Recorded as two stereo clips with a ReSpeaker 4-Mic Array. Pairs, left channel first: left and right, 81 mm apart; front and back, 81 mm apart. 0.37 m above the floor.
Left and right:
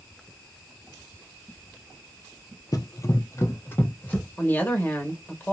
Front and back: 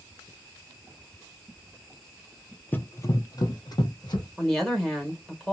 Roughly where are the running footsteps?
Ahead left.